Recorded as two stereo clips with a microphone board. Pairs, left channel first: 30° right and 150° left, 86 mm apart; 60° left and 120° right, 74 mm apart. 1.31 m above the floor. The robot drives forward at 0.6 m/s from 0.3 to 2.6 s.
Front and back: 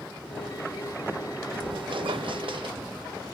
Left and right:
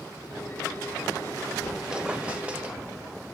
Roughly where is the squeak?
Behind left.